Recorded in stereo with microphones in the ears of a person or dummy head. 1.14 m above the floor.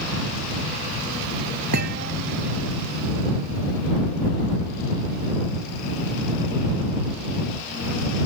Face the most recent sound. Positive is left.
turn(degrees=-55)  # may be behind; listen again after turning